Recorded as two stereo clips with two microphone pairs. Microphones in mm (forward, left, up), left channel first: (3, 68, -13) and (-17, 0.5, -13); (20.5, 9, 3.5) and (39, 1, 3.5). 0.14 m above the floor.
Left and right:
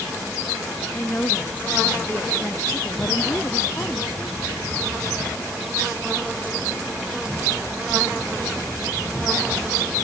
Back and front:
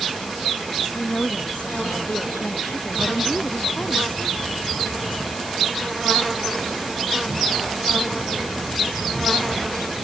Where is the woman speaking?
140° left; by 4.7 s 130° left.